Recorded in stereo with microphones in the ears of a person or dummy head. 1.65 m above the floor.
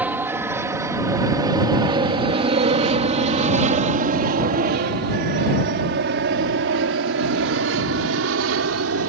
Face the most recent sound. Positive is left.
turn(degrees=-70)  # may be behind; listen again after turning